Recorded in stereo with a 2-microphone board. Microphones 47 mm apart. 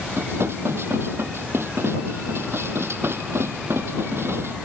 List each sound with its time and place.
0.1 s dishes clattering: 65° right (ahead or behind)